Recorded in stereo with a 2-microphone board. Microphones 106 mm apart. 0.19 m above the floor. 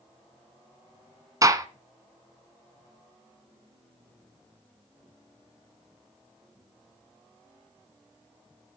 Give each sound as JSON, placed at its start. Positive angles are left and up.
{"t": 1.4, "sound": "a gunshot", "side_deg": -30, "distance_m": 1.0}